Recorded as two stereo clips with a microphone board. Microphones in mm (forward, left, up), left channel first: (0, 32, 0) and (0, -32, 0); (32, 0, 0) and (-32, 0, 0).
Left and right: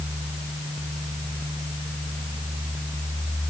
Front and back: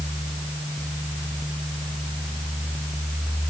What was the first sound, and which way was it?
Only background noise.